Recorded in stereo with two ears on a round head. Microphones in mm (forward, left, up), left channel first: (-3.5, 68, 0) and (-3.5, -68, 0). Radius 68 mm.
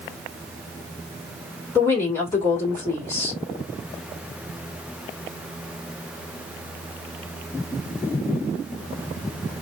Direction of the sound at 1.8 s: 15° left (ahead or behind).